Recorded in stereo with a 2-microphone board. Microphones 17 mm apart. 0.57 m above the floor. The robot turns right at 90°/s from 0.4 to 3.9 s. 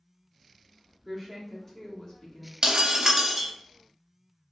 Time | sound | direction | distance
1.1 | a woman speaking | 25° right | 1.2 m
2.6 | breaking glass | 90° right | 0.6 m